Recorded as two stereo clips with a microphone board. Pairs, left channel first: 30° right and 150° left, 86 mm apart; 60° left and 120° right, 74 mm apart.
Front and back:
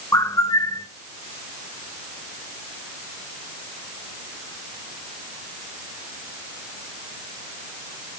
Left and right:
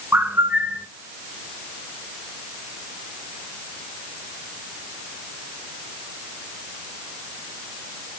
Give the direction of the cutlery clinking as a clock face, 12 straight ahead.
No cutlery clinking in this recording.